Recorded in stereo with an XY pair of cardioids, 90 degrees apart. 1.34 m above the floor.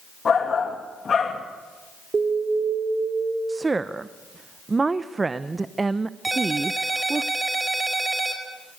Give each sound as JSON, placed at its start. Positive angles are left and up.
{"t": 0.2, "sound": "a shout", "azimuth_deg": 45, "distance_m": 2.0}
{"t": 2.1, "sound": "an alarm", "azimuth_deg": -40, "distance_m": 4.0}
{"t": 3.5, "sound": "a woman speaking", "azimuth_deg": -30, "distance_m": 0.8}
{"t": 6.2, "sound": "a ringtone", "azimuth_deg": -25, "distance_m": 4.0}